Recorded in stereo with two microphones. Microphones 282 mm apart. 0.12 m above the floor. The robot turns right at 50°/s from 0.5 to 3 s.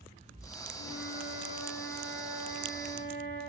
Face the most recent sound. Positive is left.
turn(degrees=-135)